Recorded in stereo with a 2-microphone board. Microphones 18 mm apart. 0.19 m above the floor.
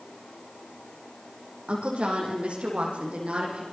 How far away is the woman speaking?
About 8.5 m.